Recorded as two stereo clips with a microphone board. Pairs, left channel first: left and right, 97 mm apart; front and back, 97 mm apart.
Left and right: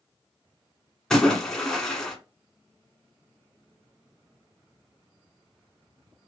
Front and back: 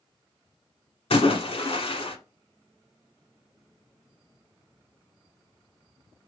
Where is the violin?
No violin in this recording.